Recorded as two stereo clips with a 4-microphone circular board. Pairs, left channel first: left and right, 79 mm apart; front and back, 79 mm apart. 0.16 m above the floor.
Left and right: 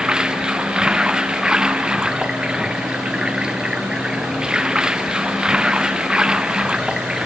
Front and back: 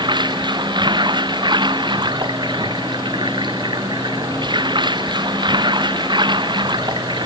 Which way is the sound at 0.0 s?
170° right.